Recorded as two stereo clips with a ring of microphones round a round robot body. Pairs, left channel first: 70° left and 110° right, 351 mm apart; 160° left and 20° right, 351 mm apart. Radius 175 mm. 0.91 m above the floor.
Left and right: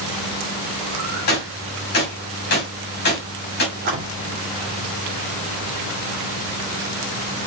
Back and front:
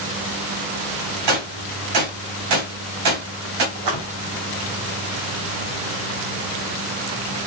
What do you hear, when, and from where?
1.3 s a gunshot: 5° left, 3 m
3.8 s a splash: 50° right, 2 m